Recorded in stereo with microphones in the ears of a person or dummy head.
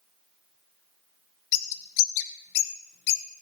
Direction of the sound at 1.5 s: 60° left (ahead or behind).